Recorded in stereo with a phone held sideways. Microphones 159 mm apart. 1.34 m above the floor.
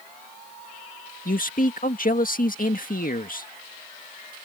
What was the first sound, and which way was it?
A man speaking, 60° left (ahead or behind).